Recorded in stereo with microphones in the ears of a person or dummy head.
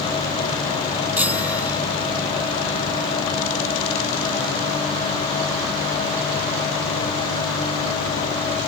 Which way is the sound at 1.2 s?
10° right (ahead or behind).